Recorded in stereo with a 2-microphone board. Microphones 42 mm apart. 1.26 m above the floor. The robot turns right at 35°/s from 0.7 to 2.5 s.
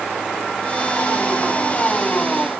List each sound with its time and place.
Only background noise.